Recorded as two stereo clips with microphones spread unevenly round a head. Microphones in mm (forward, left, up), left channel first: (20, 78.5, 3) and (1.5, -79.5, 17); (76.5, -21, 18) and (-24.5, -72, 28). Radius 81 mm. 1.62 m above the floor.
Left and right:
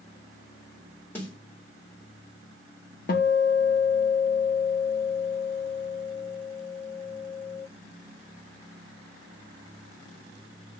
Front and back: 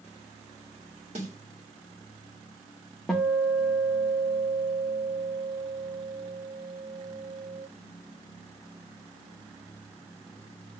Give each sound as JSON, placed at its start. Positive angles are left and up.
{"t": 1.1, "sound": "a snare drum", "azimuth_deg": 165, "distance_m": 1.8}
{"t": 3.1, "sound": "a guitar", "azimuth_deg": 115, "distance_m": 0.5}